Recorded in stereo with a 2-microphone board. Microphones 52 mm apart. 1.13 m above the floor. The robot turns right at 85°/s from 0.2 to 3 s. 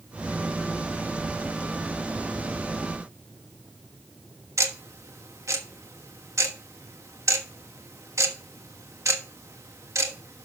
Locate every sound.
4.6 s ticking: 90° right, 1.2 m